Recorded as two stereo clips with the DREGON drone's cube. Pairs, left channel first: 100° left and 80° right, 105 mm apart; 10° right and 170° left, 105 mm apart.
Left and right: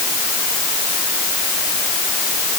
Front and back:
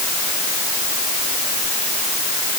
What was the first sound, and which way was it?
Only background noise.